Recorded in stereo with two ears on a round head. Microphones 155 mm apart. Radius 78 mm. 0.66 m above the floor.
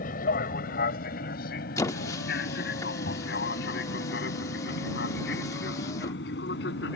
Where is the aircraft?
50° left (ahead or behind); by 7.0 s 65° left (ahead or behind).